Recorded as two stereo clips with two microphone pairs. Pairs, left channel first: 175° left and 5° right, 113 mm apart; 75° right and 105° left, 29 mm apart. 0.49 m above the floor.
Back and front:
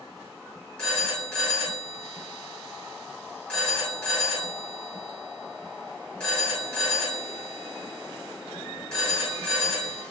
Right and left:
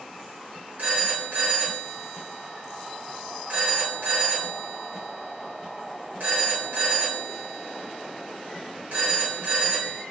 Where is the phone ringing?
95° left, 2 m.